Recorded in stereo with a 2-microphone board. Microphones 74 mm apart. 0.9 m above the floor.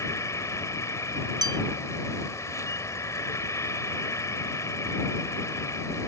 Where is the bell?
70° right (ahead or behind).